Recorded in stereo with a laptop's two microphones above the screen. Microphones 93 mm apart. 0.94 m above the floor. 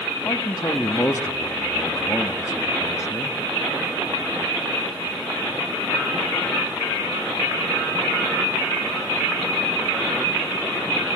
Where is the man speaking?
35° left (ahead or behind), 1.3 m.